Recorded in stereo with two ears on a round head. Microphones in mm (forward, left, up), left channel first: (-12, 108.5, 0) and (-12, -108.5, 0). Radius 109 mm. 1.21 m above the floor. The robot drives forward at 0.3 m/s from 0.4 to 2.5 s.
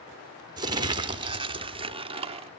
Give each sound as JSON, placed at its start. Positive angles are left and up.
{"t": 0.6, "sound": "crumpling", "side_deg": -20, "distance_m": 1.0}